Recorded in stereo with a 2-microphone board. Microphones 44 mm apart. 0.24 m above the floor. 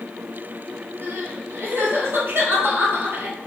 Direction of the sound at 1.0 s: 60° right (ahead or behind).